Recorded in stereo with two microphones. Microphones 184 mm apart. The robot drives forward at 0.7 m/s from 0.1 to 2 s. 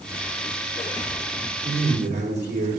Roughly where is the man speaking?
Right.